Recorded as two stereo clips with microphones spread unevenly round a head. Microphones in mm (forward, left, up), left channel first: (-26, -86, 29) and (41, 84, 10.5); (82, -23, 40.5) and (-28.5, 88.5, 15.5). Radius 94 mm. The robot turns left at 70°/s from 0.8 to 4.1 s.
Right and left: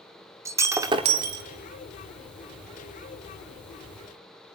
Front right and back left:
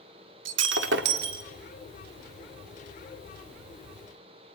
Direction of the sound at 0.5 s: 145° left.